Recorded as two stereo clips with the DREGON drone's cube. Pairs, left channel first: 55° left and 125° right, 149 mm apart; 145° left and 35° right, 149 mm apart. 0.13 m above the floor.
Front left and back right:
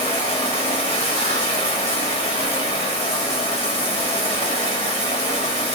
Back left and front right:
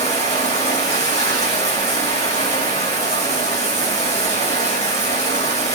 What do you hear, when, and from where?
0.0 s running water: 100° left, 3 m